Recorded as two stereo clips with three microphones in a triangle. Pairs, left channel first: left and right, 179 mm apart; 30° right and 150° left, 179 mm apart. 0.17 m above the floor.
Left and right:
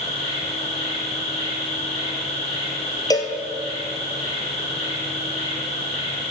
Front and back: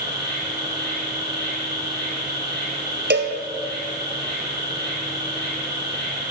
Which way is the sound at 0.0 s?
145° left.